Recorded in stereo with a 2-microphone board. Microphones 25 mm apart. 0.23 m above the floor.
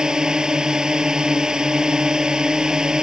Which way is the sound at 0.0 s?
30° right (ahead or behind).